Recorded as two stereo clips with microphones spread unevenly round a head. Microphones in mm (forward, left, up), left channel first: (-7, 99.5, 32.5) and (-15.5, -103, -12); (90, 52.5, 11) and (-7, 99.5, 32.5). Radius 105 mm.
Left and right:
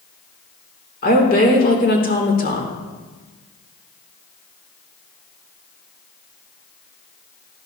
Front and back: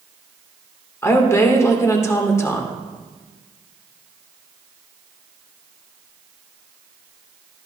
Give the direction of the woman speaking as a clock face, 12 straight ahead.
11 o'clock.